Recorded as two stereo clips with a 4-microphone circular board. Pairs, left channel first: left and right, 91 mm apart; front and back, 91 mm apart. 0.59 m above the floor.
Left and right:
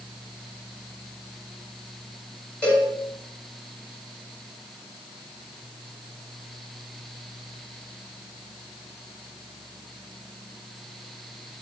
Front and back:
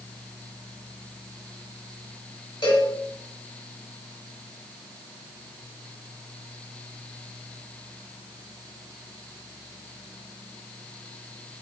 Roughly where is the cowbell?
Ahead.